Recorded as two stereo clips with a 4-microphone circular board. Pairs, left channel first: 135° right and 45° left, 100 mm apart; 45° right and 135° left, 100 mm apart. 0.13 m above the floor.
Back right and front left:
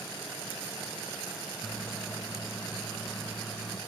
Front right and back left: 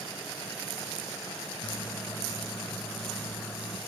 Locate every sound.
1.6 s a microwave: 50° right, 1.2 m